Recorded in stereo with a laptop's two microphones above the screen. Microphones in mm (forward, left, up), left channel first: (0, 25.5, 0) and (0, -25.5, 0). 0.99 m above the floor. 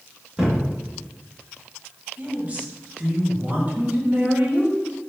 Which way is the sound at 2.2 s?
25° right (ahead or behind).